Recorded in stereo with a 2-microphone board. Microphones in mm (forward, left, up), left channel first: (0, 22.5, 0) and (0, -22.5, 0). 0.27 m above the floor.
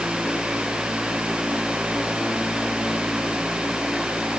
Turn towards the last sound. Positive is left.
No sound to turn to.